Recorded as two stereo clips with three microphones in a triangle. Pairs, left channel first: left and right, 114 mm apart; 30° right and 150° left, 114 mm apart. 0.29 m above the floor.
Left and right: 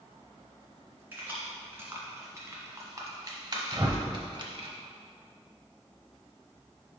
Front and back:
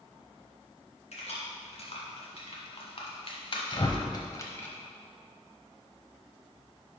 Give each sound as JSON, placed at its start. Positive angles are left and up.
{"t": 1.1, "sound": "keys jangling", "azimuth_deg": -20, "distance_m": 2.0}
{"t": 3.7, "sound": "a whoosh", "azimuth_deg": -50, "distance_m": 0.7}